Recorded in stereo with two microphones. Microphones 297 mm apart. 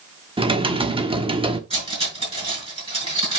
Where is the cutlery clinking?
20° right (ahead or behind), 5.5 m.